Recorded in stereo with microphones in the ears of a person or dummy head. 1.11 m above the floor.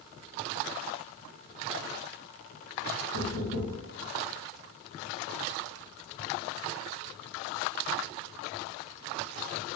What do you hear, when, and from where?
3.1 s knocking: 80° left, 1.7 m